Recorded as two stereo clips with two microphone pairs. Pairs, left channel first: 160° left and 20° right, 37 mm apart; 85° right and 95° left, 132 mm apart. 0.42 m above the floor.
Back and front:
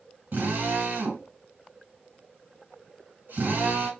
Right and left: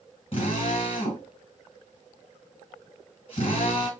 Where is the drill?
40° right, 3 m.